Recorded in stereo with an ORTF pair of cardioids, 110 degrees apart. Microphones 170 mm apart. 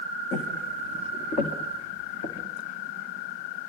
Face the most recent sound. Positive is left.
turn(degrees=50)